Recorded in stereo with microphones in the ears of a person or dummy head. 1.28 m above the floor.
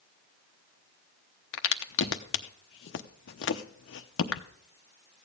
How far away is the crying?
I don't hear crying.